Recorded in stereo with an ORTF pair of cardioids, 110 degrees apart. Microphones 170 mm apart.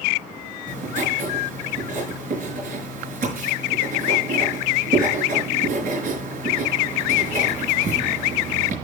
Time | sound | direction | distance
0.7 | writing | 55° right | 5 m